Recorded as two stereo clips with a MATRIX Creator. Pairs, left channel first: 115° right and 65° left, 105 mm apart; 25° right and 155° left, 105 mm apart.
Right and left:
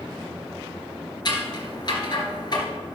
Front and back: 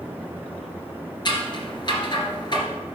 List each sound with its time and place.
1.2 s scissors: 65° right, 2.0 m